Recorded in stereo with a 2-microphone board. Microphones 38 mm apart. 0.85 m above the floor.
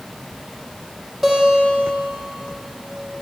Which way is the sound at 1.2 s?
5° right (ahead or behind).